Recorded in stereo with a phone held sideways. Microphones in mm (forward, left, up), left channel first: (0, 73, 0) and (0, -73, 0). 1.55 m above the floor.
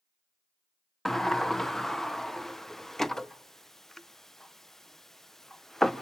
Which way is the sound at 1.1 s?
Centre (ahead or behind).